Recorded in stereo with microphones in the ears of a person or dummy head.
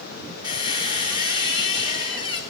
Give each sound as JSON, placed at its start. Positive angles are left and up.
{"t": 0.4, "sound": "a squeak", "side_deg": 25, "distance_m": 0.8}